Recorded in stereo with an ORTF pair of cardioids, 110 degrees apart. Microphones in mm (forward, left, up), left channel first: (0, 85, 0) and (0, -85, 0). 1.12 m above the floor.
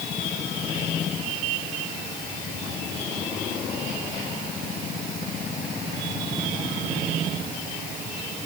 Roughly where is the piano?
No piano in this recording.